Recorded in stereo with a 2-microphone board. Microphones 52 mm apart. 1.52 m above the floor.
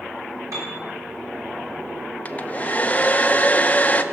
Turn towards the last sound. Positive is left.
turn(degrees=25)  # may be behind; listen again after turning